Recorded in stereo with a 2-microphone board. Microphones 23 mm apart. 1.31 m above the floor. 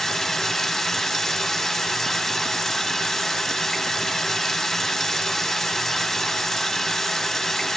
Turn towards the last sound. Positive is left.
turn(degrees=10)  # may be behind; listen again after turning